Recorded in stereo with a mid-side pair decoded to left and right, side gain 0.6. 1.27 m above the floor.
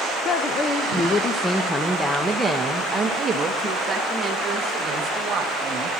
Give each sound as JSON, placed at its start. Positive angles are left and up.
{"t": 0.2, "sound": "a woman speaking", "azimuth_deg": 45, "distance_m": 1.3}